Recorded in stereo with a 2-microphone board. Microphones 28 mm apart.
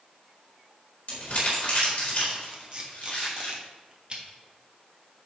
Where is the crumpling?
50° left (ahead or behind), 3.5 m.